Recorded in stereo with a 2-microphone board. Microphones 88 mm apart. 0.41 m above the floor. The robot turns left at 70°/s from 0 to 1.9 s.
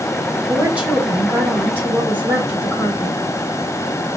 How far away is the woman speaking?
About 1.3 m.